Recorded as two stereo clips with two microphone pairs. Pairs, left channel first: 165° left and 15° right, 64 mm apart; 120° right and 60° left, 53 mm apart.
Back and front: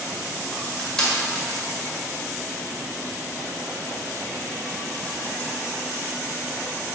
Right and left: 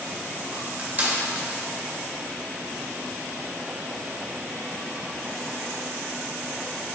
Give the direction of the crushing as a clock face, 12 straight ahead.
9 o'clock.